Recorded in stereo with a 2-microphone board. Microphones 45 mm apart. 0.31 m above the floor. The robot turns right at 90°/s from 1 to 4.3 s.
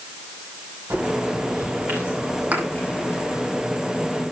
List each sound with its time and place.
0.9 s a bird: 125° right, 8.5 m; by 3.5 s 100° left, 8.5 m
2.5 s a thud: 35° right (ahead or behind), 4 m; by 2.7 s 20° right (ahead or behind), 4 m